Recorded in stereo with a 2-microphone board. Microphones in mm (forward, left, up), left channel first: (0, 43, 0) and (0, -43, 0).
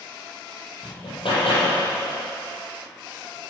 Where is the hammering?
75° left (ahead or behind), 4.5 m.